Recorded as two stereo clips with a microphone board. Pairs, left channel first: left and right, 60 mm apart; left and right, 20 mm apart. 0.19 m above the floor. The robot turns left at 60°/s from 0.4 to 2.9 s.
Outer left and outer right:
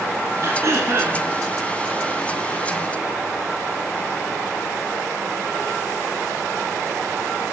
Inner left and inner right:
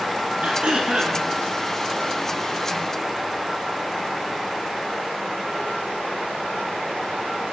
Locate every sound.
0.4 s throat clearing: 85° right, 0.7 m; by 1.2 s 130° right, 0.7 m